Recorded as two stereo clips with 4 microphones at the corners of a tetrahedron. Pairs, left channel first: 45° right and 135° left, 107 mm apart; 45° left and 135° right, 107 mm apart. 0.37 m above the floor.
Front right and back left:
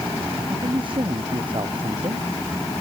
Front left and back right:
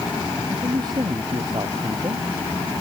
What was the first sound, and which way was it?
A man speaking, 175° left.